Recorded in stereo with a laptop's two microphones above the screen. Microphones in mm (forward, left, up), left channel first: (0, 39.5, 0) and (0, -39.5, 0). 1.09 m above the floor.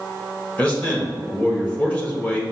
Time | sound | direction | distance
0.6 | a man speaking | 20° left (ahead or behind) | 1.1 m